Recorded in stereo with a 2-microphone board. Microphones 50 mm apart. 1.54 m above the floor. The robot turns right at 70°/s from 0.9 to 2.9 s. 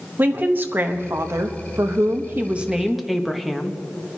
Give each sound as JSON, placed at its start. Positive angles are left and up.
{"t": 0.2, "sound": "a woman speaking", "azimuth_deg": -140, "distance_m": 0.9}